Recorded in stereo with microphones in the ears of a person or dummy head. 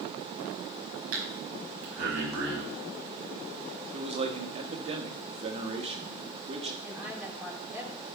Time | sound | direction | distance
1.1 | breathing | 80° right | 5 m
3.9 | a man speaking | 30° right (ahead or behind) | 1.7 m
6.8 | a woman speaking | 5° right (ahead or behind) | 2.5 m